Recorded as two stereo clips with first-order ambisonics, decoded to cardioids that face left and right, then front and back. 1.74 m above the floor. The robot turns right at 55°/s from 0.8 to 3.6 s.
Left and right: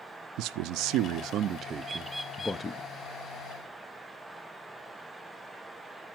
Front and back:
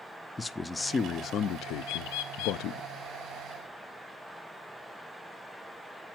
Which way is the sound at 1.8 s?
20° right.